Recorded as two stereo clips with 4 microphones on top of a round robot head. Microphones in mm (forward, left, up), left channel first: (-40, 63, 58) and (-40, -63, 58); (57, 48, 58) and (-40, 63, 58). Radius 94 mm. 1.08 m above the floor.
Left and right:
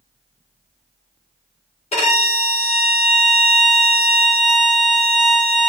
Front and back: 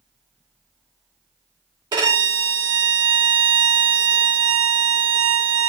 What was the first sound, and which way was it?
A violin, 125° left.